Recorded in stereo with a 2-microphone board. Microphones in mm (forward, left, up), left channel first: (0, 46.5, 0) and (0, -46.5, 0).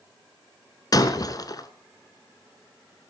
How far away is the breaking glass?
About 1.3 m.